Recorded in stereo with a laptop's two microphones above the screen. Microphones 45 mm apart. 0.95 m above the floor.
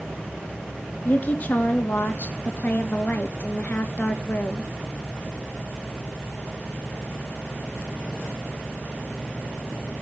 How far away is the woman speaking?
About 1.8 m.